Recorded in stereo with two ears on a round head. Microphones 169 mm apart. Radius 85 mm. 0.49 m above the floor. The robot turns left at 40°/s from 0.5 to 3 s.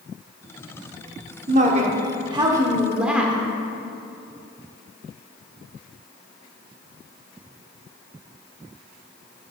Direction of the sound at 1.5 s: 110° right.